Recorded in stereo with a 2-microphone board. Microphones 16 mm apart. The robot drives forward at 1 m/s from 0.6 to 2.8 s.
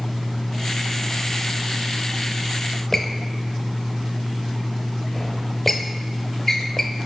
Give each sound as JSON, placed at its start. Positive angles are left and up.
{"t": 2.9, "sound": "a squeak", "side_deg": 10, "distance_m": 0.8}